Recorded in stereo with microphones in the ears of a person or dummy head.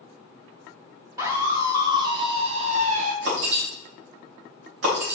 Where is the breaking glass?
75° right (ahead or behind), 3 m.